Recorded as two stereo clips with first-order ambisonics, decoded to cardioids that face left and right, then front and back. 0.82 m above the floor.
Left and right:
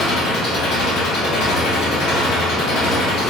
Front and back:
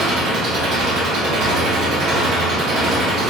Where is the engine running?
130° left, 1.2 m.